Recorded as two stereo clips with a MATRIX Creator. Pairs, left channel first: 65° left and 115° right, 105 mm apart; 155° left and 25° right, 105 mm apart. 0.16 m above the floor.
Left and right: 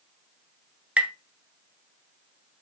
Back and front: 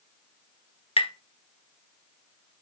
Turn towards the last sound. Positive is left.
turn(degrees=170)